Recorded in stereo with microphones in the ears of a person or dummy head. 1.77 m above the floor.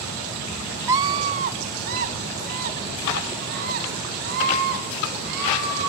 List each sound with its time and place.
0.9 s a scream: 10° right (ahead or behind), 0.7 m; by 5.9 s 55° right (ahead or behind), 7.5 m